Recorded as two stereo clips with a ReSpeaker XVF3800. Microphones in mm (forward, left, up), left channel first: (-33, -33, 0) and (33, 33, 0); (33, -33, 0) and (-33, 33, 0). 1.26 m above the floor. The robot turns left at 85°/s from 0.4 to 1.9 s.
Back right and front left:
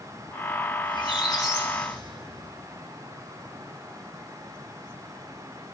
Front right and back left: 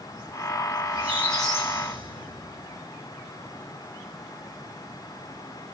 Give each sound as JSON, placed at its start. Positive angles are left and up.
{"t": 0.8, "sound": "a squeak", "azimuth_deg": -135, "distance_m": 2.5}